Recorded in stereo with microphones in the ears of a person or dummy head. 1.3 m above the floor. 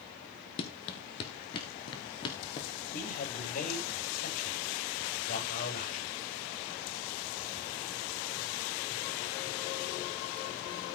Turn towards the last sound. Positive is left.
turn(degrees=50)  # may be behind; listen again after turning